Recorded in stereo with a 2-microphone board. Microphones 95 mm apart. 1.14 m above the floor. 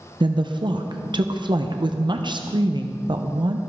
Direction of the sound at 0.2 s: 50° right (ahead or behind).